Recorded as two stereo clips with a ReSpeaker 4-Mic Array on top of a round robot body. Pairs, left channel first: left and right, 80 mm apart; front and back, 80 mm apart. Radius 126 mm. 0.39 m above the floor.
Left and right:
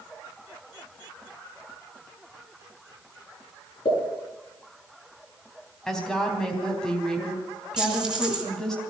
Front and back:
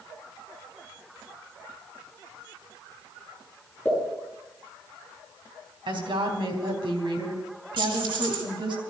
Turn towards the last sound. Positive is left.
turn(degrees=-170)